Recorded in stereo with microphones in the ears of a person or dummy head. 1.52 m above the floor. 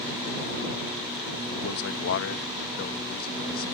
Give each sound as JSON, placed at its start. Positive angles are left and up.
{"t": 1.6, "sound": "a man speaking", "side_deg": 75}